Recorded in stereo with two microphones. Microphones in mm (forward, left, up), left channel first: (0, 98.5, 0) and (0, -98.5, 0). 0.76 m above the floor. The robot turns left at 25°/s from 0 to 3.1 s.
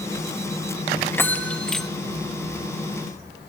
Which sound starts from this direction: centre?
A bell, at 1.1 s.